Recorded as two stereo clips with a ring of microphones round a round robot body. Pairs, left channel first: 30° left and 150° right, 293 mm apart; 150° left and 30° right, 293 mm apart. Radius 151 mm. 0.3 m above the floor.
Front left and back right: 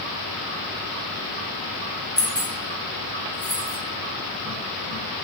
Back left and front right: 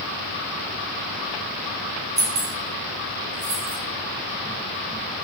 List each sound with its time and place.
2.2 s keys jangling: 70° right, 2.5 m; by 3.8 s 65° right, 3 m